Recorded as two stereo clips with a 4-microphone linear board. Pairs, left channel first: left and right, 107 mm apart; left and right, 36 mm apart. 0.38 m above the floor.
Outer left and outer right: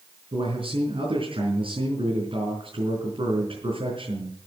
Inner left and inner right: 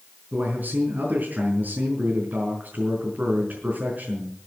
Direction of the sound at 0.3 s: 60° right (ahead or behind).